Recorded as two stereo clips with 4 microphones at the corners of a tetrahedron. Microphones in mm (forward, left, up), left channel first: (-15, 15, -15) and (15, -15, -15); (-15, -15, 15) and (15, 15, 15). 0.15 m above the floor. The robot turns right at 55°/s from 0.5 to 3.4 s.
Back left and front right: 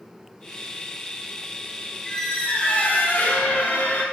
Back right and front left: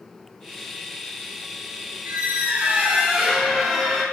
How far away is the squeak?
About 0.9 m.